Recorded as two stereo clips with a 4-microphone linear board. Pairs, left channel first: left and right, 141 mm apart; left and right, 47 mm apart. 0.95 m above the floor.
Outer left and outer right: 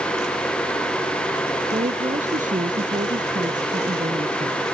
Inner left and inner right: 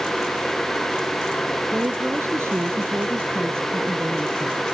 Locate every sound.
1.7 s a woman speaking: 55° right (ahead or behind)